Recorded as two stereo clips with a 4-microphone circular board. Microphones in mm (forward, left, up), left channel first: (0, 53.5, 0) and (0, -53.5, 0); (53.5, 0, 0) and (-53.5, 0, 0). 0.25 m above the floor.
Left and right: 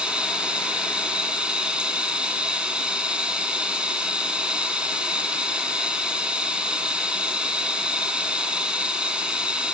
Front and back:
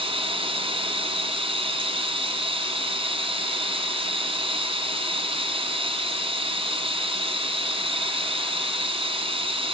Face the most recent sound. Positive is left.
turn(degrees=-170)